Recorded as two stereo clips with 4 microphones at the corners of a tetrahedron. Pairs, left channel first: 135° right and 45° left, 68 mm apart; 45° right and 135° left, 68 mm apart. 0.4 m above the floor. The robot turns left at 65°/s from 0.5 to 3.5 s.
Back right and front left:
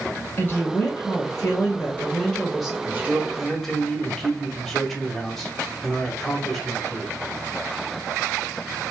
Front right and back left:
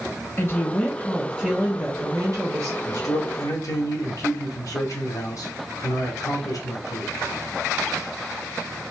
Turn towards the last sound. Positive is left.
turn(degrees=-50)